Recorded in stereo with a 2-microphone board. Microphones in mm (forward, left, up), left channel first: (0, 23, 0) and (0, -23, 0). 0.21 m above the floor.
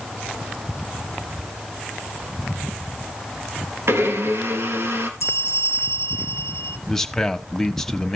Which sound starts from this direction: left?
A bell, at 5.2 s.